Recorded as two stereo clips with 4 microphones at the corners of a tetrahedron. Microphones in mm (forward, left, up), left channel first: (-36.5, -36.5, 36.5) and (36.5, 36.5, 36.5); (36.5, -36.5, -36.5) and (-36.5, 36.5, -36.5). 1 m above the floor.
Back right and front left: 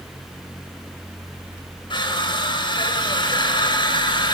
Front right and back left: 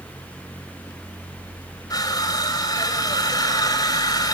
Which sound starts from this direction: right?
Crushing, at 1.9 s.